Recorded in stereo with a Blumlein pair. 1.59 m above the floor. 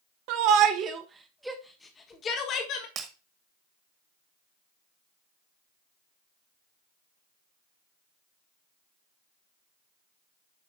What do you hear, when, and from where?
0.3 s a shout: 45° right, 1.6 m; by 2.9 s 40° left, 1.9 m
3.0 s breaking glass: 30° right, 2 m